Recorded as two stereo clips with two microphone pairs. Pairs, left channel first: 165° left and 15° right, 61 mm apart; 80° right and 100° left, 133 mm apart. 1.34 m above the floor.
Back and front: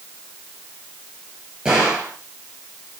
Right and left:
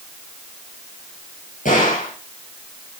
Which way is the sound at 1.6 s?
85° right.